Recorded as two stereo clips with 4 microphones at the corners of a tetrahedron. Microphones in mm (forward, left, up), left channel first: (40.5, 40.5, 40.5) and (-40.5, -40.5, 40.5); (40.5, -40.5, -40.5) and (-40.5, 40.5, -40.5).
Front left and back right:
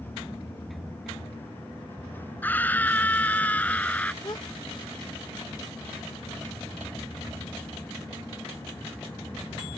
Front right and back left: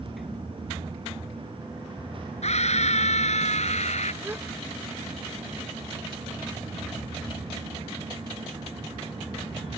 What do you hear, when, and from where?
2.4 s a scream: 30° right
4.2 s a gasp: 75° left